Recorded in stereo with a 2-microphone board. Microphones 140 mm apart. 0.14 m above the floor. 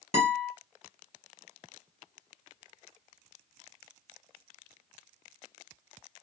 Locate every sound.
0.1 s a guitar: 50° left (ahead or behind), 1.7 m